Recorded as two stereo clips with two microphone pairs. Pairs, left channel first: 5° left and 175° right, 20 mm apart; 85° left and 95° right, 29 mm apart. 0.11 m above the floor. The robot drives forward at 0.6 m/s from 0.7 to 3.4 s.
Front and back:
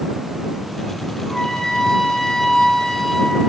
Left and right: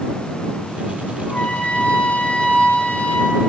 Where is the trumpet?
45° left, 4 m; by 3.4 s 60° left, 3.5 m.